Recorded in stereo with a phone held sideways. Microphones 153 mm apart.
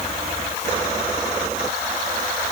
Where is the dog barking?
No dog barking in this recording.